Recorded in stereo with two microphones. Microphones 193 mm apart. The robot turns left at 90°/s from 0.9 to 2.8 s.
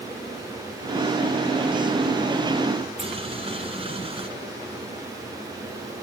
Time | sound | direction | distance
3.0 | boiling | 25° right (ahead or behind) | 2 m